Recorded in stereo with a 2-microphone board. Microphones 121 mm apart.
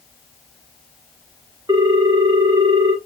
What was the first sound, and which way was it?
A ringtone, 30° right (ahead or behind).